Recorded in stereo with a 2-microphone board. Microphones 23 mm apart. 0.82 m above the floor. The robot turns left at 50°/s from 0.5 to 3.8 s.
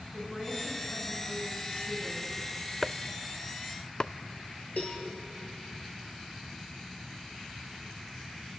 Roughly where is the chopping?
Centre.